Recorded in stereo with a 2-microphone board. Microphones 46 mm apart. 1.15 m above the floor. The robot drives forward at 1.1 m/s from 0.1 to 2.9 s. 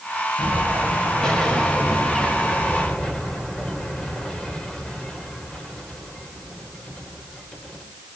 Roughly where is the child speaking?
I don't hear a child speaking.